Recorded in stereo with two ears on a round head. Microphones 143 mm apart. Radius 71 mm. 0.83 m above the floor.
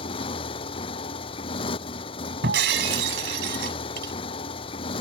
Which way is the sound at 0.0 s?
35° left (ahead or behind).